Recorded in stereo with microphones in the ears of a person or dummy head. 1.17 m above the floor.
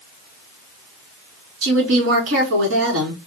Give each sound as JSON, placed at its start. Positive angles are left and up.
{"t": 1.6, "sound": "a woman speaking", "side_deg": -80, "distance_m": 2.5}